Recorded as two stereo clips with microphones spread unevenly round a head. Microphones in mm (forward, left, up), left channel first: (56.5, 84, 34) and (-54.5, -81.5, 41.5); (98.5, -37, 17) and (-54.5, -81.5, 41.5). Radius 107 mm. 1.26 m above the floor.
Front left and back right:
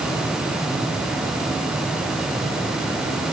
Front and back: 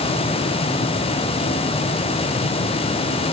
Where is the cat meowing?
I don't hear a cat meowing.